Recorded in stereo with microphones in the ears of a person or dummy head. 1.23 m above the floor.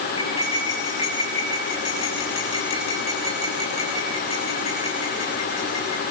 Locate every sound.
0.2 s cutlery clinking: 30° left (ahead or behind), 5 m